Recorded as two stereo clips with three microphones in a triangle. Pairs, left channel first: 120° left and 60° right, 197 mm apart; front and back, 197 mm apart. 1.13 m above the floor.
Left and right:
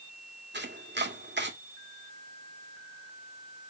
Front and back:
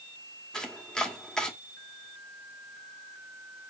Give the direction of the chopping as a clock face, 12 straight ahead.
3 o'clock.